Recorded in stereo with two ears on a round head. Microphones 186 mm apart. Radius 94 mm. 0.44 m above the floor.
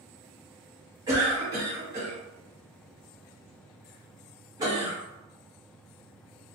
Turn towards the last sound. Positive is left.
turn(degrees=-15)  # may be behind; listen again after turning